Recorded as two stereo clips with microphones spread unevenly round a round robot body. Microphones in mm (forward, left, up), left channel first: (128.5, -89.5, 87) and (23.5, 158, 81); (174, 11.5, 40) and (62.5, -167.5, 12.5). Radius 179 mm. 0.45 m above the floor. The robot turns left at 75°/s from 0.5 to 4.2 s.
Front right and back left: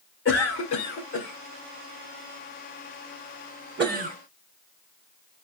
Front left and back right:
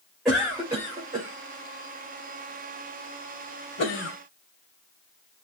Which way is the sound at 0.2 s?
35° right.